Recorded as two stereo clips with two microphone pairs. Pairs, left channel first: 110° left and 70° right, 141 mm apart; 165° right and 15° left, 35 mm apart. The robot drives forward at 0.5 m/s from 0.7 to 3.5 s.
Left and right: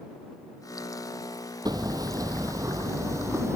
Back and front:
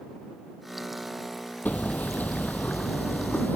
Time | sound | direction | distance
1.6 | hammering | 130° right | ?